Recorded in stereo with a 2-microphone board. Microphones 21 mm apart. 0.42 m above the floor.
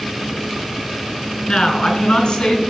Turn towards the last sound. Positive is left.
turn(degrees=40)  # may be behind; listen again after turning